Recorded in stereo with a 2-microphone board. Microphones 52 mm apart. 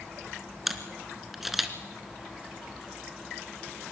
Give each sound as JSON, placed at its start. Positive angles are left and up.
{"t": 0.7, "sound": "a camera shutter", "side_deg": -5, "distance_m": 1.6}